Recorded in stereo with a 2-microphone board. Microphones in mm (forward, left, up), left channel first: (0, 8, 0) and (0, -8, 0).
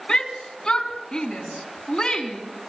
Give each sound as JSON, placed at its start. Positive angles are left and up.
{"t": 0.1, "sound": "a shout", "side_deg": 70, "distance_m": 3.5}